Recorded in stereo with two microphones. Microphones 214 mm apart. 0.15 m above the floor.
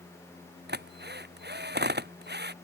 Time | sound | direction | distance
0.7 | a drill | 50° right (ahead or behind) | ?